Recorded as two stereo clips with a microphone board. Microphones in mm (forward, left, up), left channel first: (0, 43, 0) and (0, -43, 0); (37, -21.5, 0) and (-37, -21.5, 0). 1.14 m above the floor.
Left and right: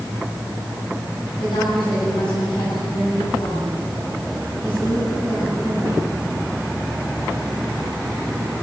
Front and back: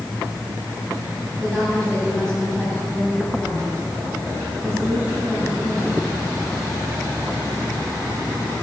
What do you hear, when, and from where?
1.4 s a woman speaking: 80° left, 9.5 m